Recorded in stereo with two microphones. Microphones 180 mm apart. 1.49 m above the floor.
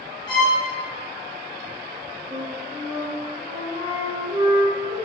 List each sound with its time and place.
0.3 s a violin: 25° left (ahead or behind), 1.3 m
2.3 s a flute: 45° right (ahead or behind), 1.1 m